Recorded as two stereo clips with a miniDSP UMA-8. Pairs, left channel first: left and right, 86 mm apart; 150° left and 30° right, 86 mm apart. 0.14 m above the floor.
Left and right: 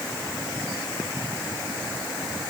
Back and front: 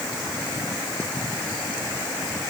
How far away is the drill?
No drill in this recording.